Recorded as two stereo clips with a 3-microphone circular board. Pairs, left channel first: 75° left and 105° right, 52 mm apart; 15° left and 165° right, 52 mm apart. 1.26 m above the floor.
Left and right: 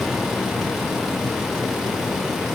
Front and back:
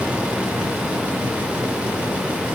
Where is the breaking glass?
No breaking glass in this recording.